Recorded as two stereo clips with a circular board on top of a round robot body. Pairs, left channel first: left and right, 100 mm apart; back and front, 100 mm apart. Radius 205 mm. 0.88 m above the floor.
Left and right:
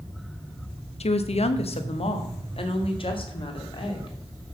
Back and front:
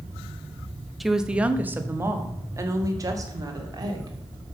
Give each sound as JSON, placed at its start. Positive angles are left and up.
{"t": 1.0, "sound": "a woman speaking", "azimuth_deg": 90, "distance_m": 1.0}